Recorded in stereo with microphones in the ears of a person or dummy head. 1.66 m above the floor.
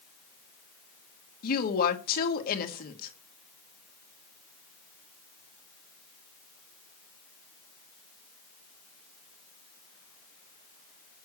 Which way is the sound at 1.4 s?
55° left (ahead or behind).